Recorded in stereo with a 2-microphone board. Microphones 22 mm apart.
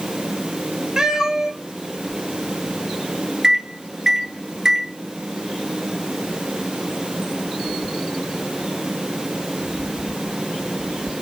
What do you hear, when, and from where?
1.0 s a cat meowing: 30° right (ahead or behind), 1.0 m
3.4 s a microwave: 30° right (ahead or behind), 1.0 m